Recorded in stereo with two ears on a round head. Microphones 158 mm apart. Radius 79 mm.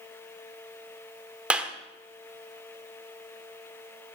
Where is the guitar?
No guitar in this recording.